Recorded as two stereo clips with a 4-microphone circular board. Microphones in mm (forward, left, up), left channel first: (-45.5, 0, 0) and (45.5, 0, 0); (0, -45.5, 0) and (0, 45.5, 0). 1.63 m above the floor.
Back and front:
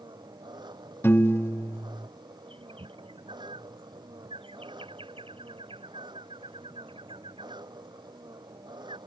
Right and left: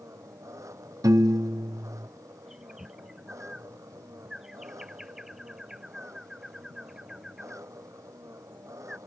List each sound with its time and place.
0.0 s an engine running: 35° left
1.0 s a piano: 120° left
2.5 s a bird: 5° left